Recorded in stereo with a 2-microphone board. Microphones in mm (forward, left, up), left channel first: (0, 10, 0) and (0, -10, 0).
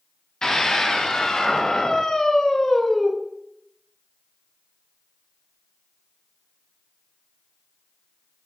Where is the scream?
40° left (ahead or behind), 2 m; by 3.1 s 25° left (ahead or behind), 1.2 m.